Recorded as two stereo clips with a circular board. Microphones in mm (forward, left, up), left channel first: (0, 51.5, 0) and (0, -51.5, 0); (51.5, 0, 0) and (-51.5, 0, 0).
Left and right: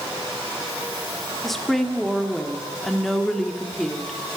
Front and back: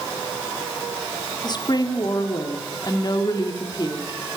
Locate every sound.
1.4 s a woman speaking: 5° left, 1.4 m